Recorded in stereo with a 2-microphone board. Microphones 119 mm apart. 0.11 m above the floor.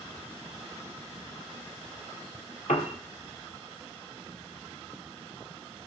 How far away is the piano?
About 1.0 m.